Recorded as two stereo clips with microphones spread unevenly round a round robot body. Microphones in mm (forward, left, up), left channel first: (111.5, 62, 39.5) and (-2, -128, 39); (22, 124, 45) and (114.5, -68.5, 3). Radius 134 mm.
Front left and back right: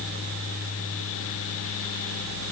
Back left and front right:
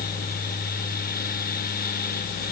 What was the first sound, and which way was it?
Only background noise.